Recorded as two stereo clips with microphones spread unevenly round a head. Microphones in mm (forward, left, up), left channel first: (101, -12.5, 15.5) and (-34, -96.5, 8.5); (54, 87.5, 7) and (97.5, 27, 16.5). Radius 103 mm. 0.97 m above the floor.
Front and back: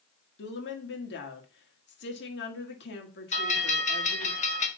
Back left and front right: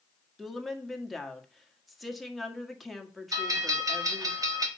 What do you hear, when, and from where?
0.4 s a woman speaking: 35° left, 1.8 m
3.3 s a bell: 15° right, 1.5 m